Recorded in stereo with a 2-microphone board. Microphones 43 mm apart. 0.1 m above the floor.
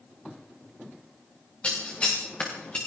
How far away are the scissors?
About 5.5 m.